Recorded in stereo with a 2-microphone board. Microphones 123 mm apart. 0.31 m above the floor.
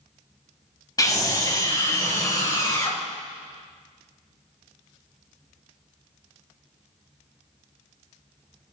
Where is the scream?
25° left (ahead or behind), 2.5 m.